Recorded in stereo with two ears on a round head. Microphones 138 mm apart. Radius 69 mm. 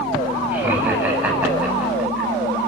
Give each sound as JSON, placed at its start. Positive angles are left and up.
{"t": 0.5, "sound": "laughter", "side_deg": -15, "distance_m": 8.5}